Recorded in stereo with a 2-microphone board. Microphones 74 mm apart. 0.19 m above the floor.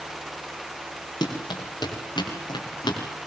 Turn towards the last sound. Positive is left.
turn(degrees=80)